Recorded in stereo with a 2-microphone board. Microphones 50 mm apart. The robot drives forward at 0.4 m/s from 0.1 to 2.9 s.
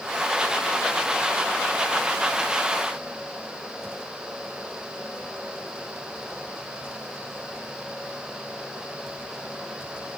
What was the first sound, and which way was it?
Only background noise.